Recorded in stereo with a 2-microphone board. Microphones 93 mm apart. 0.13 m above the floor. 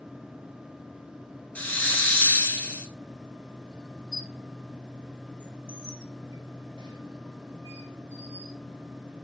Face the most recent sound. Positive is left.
turn(degrees=-50)  # may be behind; listen again after turning